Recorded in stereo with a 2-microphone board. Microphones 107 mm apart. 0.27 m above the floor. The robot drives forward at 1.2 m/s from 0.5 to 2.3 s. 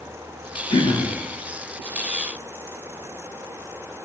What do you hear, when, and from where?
0.7 s throat clearing: 45° left (ahead or behind), 2.5 m; by 1.1 s 55° left (ahead or behind), 2 m